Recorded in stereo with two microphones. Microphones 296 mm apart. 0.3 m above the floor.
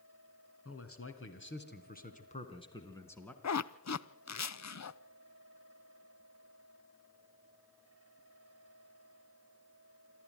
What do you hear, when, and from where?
0.7 s a man speaking: 55° left (ahead or behind), 2.5 m; by 3.3 s 5° left (ahead or behind), 2.5 m
3.4 s a zipper: 65° left (ahead or behind), 0.5 m